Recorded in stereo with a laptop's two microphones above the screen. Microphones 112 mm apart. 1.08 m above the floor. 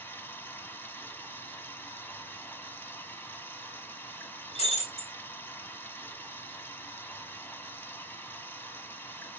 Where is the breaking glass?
85° left, 4 m.